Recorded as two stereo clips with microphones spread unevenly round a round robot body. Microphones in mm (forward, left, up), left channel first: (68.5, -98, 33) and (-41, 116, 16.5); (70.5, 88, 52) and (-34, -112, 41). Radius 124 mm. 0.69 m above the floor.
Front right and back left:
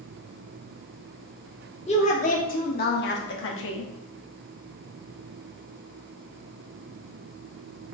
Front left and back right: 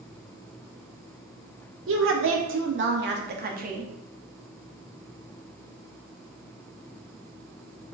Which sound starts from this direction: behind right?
A woman speaking, at 1.9 s.